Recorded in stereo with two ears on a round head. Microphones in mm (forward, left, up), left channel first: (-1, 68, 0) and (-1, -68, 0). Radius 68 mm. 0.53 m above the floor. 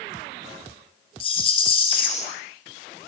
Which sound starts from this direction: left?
A rattle, at 1.2 s.